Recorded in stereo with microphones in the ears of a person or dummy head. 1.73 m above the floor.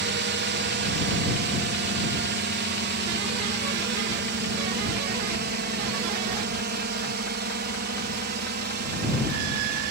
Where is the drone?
50° right (ahead or behind).